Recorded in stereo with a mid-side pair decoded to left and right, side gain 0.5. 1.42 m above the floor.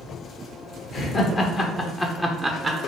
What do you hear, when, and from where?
0.9 s laughter: 50° left, 1.3 m; by 2.9 s 40° right, 0.6 m